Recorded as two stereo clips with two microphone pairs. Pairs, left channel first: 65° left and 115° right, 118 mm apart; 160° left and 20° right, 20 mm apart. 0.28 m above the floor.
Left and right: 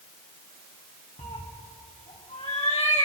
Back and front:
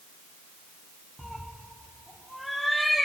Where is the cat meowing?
70° left, 3 m.